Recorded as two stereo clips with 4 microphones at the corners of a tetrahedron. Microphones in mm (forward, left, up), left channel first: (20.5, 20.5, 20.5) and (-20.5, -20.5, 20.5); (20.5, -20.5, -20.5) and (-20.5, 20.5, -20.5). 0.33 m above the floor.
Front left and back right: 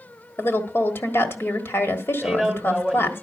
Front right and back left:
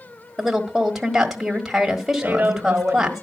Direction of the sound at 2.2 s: 135° left.